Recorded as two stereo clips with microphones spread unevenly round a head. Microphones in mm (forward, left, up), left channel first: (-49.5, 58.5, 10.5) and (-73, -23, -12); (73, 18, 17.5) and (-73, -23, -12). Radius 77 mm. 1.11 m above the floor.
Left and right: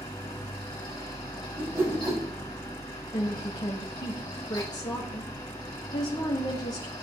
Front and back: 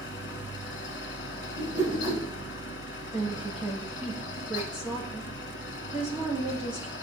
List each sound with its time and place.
0.0 s a fan: 20° left, 1.9 m
1.6 s a whoosh: 170° right, 2.5 m
3.1 s a woman speaking: 115° left, 1.6 m